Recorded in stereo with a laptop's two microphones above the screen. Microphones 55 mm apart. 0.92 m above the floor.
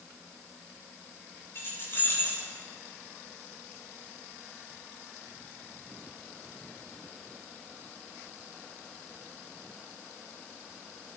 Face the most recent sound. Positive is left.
turn(degrees=50)  # may be behind; listen again after turning